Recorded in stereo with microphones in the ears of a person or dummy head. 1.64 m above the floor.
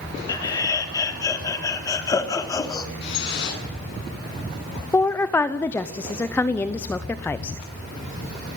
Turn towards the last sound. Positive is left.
turn(degrees=20)  # may be behind; listen again after turning